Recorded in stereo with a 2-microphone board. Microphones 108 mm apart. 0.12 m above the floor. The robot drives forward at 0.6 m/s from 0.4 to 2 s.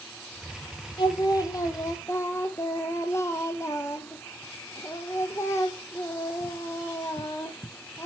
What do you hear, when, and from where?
1.0 s singing: 45° left (ahead or behind), 0.8 m; by 8.1 s 25° left (ahead or behind), 1.3 m